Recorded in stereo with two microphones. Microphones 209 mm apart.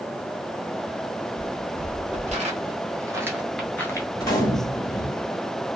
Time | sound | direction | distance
1.4 | footsteps | 50° right (ahead or behind) | 1.8 m
4.2 | a gunshot | 20° left (ahead or behind) | 1.1 m